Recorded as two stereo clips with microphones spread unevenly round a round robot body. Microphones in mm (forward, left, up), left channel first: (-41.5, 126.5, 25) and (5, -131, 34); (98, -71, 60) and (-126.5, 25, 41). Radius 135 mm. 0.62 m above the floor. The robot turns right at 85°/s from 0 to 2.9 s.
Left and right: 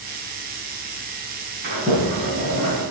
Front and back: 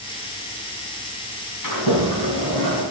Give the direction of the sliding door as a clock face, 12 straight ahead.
1 o'clock.